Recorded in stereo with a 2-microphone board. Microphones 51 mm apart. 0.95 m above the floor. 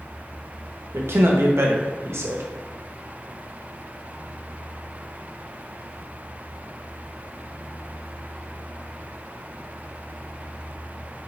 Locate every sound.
0.9 s a man speaking: 65° right (ahead or behind), 0.9 m